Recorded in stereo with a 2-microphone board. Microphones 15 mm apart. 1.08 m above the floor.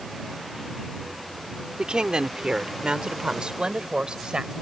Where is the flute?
I don't hear a flute.